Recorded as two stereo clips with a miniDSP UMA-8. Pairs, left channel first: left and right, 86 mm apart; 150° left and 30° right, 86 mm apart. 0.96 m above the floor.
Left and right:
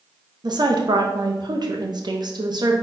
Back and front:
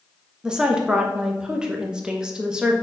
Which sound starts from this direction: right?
A woman speaking, at 0.4 s.